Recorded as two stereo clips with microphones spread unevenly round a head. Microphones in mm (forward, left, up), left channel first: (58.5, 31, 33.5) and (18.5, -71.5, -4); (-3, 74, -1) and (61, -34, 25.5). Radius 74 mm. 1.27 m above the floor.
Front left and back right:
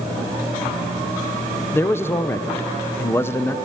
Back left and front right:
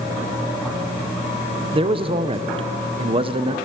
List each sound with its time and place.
1.7 s a man speaking: 10° right, 0.9 m